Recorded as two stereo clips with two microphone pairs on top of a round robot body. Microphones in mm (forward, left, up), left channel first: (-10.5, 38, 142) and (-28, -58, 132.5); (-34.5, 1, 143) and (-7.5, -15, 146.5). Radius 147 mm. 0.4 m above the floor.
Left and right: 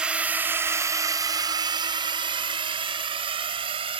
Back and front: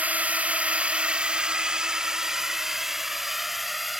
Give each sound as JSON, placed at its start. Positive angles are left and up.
{"t": 0.0, "sound": "a drone", "azimuth_deg": -30}